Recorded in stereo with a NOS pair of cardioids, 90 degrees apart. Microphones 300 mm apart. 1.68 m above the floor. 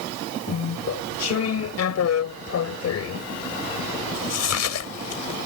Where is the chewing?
60° left.